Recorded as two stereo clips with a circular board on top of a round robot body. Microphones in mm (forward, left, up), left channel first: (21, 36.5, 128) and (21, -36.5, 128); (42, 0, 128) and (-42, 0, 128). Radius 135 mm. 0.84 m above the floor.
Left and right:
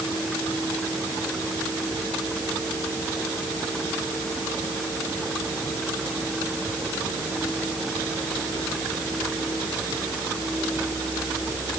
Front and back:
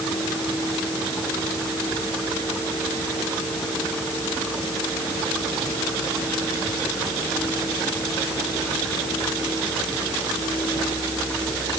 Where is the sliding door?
No sliding door in this recording.